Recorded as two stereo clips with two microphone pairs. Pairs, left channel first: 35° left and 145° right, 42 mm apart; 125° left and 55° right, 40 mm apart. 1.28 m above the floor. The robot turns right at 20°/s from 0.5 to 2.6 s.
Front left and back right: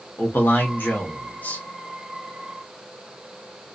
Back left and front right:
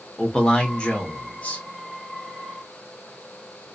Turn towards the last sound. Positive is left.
turn(degrees=95)